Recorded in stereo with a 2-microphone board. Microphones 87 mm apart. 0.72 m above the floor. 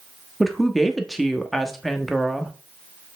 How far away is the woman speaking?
About 1.0 m.